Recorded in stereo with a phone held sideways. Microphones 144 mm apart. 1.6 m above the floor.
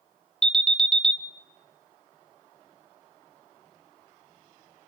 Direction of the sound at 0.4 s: 5° left (ahead or behind).